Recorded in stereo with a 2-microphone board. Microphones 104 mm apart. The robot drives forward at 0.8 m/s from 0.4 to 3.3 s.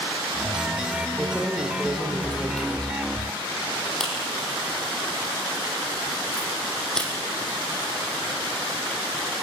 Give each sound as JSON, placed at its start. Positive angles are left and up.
{"t": 1.2, "sound": "keys jangling", "side_deg": 10, "distance_m": 4.5}